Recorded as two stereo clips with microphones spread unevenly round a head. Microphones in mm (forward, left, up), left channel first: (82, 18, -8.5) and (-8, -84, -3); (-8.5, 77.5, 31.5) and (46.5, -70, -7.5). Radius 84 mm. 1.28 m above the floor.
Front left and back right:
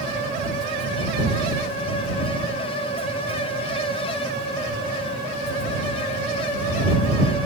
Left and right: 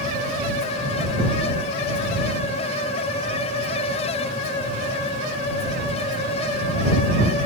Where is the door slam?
I don't hear a door slam.